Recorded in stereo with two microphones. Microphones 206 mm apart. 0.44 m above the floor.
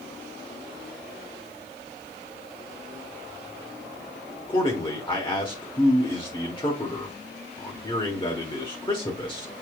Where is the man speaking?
25° left (ahead or behind), 1.3 m.